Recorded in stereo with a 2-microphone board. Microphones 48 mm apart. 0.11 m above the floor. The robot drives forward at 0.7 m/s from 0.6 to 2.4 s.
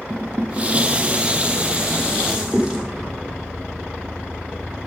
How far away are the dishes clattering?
About 1.2 m.